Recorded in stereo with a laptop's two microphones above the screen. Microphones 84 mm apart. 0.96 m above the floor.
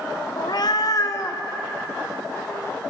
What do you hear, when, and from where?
0.4 s a cat meowing: 60° left (ahead or behind), 0.5 m; by 2.8 s 30° left (ahead or behind), 1.9 m